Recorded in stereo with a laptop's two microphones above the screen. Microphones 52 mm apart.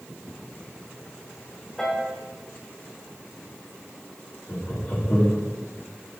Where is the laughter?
40° left (ahead or behind), 2.5 m.